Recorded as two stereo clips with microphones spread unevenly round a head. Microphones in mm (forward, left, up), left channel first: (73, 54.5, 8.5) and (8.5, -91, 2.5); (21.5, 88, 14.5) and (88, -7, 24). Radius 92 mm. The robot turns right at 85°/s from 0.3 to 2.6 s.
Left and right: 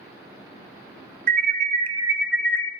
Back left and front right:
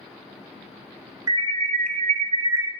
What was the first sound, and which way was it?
An alarm, 115° right.